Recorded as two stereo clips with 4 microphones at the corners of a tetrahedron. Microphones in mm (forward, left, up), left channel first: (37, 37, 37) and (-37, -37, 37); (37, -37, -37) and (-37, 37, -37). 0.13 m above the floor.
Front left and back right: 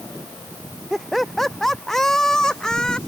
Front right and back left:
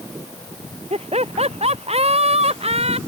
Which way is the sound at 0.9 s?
135° left.